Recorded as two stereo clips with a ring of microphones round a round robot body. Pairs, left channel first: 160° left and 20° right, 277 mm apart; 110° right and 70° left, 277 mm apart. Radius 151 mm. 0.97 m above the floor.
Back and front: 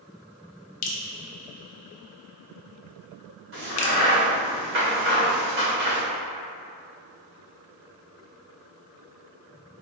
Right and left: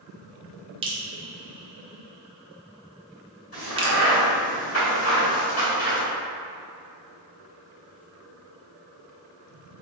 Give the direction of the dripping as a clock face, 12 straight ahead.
7 o'clock.